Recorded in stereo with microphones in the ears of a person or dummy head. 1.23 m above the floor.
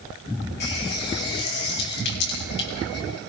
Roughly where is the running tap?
Left.